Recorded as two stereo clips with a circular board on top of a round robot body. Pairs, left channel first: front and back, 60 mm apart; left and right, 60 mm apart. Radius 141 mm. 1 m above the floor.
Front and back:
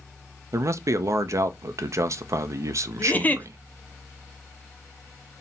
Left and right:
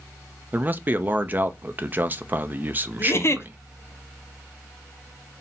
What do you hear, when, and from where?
0.5 s a man speaking: 145° right, 0.6 m
3.0 s a giggle: 60° left, 0.7 m